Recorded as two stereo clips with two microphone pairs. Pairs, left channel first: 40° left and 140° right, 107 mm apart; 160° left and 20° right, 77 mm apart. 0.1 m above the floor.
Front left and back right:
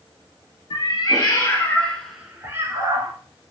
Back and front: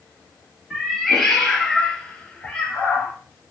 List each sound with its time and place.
0.7 s a cat meowing: 70° left, 0.9 m; by 3.1 s 140° right, 0.7 m